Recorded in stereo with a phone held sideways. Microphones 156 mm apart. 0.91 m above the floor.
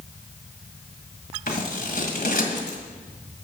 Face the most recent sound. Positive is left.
turn(degrees=75)  # may be behind; listen again after turning